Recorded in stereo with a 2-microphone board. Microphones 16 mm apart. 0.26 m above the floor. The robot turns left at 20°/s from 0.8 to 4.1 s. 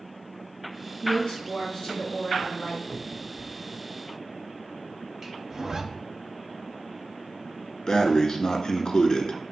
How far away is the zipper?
About 0.7 m.